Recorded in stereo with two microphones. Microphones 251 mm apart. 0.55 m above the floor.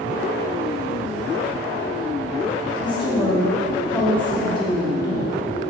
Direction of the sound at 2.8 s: 20° left (ahead or behind).